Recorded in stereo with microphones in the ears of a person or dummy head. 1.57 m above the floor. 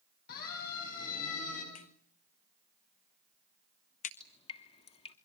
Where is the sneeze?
No sneeze in this recording.